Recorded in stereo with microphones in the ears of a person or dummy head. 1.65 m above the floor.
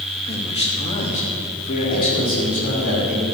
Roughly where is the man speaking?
Left.